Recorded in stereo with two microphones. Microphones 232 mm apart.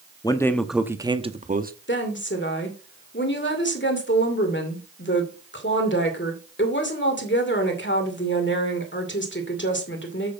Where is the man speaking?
15° left (ahead or behind), 0.8 m; by 1.7 s 40° right (ahead or behind), 0.9 m.